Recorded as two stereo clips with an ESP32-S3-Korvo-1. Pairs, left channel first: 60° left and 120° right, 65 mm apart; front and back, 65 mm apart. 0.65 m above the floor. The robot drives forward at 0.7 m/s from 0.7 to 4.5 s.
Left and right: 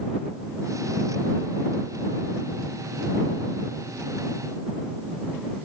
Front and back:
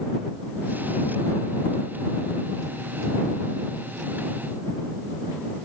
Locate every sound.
Only background noise.